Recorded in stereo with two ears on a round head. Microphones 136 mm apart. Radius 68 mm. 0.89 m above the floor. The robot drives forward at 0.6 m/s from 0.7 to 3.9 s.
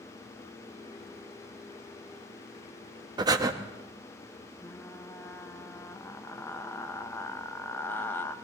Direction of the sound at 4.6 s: 15° left (ahead or behind).